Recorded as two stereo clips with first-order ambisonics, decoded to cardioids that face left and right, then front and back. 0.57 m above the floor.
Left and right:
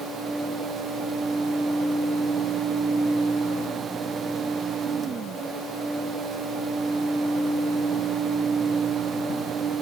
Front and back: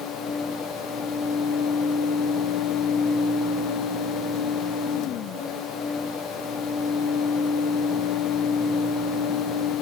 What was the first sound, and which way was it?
Only background noise.